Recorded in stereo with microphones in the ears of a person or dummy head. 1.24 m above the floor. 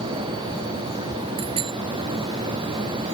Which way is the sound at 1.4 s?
25° right (ahead or behind).